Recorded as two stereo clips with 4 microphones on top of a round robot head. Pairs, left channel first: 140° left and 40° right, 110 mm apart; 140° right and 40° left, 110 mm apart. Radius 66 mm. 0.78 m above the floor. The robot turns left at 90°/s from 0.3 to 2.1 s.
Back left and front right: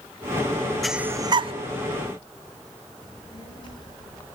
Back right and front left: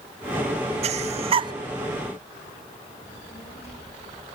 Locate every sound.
0.8 s breathing: 50° left, 0.5 m; by 1.5 s 10° right, 0.5 m
3.0 s a child speaking: 170° right, 10 m